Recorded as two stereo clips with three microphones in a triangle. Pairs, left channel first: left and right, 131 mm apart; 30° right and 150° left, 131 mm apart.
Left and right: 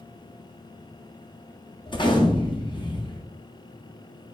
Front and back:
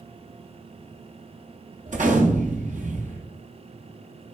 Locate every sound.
1.9 s a gunshot: 140° left, 0.6 m